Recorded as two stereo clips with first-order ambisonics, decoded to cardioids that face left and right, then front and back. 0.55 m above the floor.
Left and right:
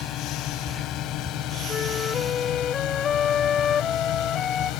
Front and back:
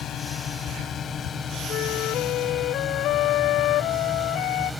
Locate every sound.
0.0 s a drone: 55° left; by 4.8 s 85° left
1.7 s a flute: 30° left